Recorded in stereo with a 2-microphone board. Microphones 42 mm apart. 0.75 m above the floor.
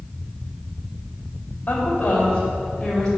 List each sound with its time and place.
1.7 s a woman speaking: 40° left (ahead or behind), 4 m; by 3.1 s 15° left (ahead or behind), 4.5 m